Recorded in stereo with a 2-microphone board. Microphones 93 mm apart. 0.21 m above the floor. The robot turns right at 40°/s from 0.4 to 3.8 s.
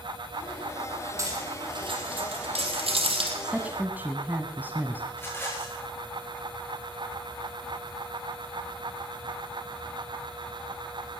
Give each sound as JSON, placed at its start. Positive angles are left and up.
{"t": 1.2, "sound": "cutlery clinking", "side_deg": -30, "distance_m": 4.0}
{"t": 3.4, "sound": "a woman speaking", "side_deg": -10, "distance_m": 1.3}
{"t": 5.1, "sound": "a rattle", "side_deg": 25, "distance_m": 3.0}